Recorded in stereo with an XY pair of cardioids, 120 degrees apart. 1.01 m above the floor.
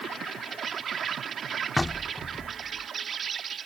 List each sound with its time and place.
0.0 s an insect: 45° right
1.8 s knocking: 5° left